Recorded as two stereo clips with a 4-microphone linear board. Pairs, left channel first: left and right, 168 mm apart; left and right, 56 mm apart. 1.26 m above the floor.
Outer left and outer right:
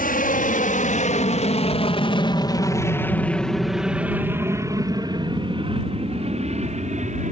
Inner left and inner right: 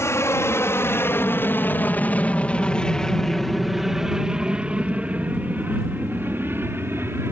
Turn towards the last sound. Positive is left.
turn(degrees=-45)  # may be behind; listen again after turning